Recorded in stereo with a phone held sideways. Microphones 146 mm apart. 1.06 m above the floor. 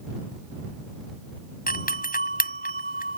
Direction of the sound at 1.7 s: 80° left.